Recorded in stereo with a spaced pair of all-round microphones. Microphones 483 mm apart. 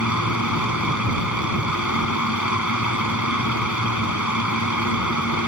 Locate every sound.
0.0 s a fan: 35° left (ahead or behind)